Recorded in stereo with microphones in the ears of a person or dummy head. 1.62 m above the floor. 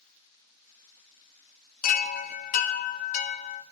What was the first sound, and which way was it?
A chime, 45° left (ahead or behind).